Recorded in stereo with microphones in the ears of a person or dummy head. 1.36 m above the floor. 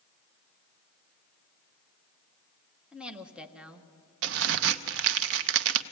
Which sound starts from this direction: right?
A crack, at 4.2 s.